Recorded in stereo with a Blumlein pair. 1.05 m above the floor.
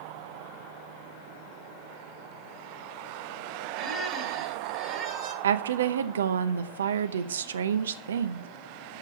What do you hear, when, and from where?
3.8 s a squeak: 30° right, 1.8 m
5.4 s a woman speaking: 65° right, 0.7 m